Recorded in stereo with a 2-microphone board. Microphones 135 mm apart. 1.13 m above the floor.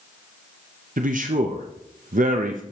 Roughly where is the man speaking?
Right.